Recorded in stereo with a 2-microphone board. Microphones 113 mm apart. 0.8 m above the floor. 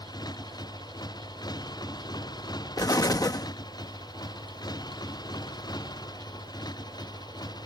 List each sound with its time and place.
0.0 s a motorcycle: 40° left (ahead or behind)
2.8 s an explosion: 35° left (ahead or behind)